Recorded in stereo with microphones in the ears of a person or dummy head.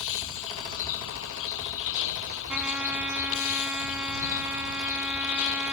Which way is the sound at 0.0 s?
80° left.